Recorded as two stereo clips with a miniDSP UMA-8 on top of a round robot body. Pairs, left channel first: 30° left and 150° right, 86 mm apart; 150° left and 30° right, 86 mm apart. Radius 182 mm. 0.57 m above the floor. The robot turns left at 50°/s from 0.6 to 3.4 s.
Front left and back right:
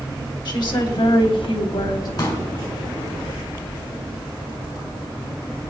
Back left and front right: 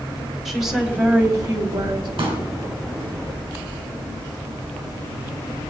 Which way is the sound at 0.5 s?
60° left.